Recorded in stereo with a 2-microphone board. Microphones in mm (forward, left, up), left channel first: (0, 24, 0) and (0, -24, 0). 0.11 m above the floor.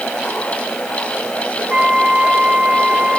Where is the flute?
35° right (ahead or behind), 1.1 m.